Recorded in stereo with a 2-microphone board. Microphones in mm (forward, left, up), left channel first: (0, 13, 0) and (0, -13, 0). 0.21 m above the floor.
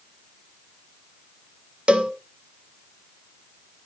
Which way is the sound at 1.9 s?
45° right (ahead or behind).